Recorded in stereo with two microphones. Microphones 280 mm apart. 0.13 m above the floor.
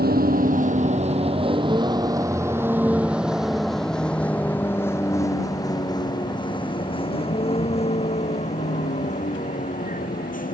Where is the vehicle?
35° right (ahead or behind); by 10.6 s 30° left (ahead or behind).